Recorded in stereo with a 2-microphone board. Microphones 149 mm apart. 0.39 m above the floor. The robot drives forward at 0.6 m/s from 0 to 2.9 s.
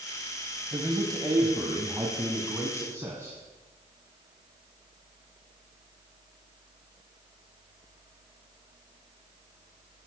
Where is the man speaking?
30° right (ahead or behind), 1.8 m; by 3.4 s 15° right (ahead or behind), 3 m.